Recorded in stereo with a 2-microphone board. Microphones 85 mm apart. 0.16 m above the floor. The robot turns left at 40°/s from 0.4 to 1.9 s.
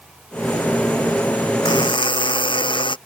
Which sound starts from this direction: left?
A buzzer, at 1.6 s.